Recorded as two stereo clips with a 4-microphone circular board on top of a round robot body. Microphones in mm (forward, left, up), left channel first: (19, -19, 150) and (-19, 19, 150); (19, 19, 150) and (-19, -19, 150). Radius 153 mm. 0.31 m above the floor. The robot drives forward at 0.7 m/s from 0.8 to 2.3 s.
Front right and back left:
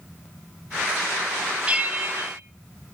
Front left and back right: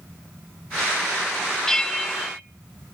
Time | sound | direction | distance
1.7 | a bell | 110° left | 1.0 m